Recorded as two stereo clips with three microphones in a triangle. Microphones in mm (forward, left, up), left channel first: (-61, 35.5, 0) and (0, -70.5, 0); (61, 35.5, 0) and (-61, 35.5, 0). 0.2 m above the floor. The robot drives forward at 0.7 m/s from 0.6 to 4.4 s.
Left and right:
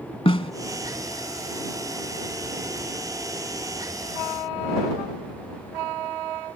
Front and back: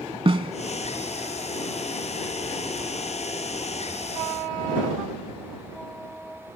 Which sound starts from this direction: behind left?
A snare drum, at 0.2 s.